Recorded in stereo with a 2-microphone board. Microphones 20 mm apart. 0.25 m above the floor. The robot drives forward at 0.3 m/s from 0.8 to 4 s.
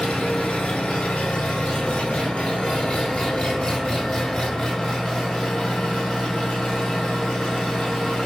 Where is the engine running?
85° left, 0.9 m; by 8.3 s 40° left (ahead or behind), 1.3 m.